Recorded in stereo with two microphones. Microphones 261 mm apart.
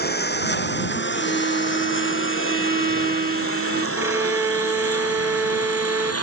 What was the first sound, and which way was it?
A lawn mower, 40° left (ahead or behind).